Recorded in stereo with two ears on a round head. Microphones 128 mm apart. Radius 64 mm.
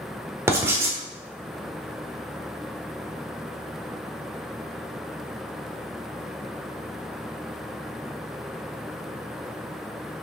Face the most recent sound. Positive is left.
turn(degrees=-20)  # may be behind; listen again after turning